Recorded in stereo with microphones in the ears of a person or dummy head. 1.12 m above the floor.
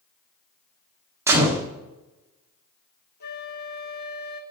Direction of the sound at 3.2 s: 50° left (ahead or behind).